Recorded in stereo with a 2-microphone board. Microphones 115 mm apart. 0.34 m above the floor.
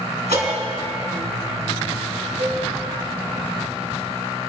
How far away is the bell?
About 3.5 m.